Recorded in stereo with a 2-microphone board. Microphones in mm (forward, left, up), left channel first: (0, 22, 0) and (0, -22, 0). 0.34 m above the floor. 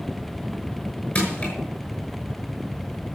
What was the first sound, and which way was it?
Crushing, 30° left (ahead or behind).